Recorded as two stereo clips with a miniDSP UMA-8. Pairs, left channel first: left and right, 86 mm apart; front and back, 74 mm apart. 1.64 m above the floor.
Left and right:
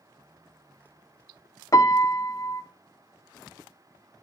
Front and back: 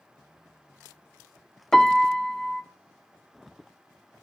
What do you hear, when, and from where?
1.7 s a piano: 80° left, 0.6 m